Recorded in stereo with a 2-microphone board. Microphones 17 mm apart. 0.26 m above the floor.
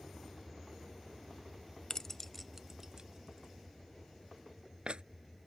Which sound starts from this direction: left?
Keys jangling, at 1.9 s.